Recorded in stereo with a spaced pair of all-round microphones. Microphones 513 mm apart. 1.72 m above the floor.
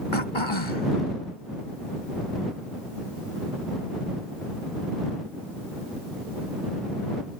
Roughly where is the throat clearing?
Left.